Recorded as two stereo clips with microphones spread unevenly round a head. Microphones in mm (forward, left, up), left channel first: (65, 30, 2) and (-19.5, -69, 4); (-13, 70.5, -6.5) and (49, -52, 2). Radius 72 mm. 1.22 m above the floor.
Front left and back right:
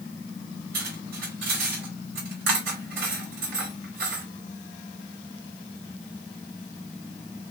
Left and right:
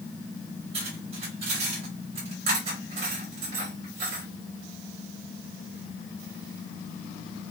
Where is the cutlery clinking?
120° right, 3 m.